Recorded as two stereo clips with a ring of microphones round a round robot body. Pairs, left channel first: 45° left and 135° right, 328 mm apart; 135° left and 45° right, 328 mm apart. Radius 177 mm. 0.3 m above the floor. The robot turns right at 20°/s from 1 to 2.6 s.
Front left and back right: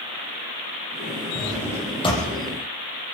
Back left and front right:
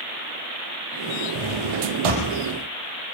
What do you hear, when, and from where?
1.4 s a drawer: 45° right, 6.5 m; by 2.3 s 25° right, 6.5 m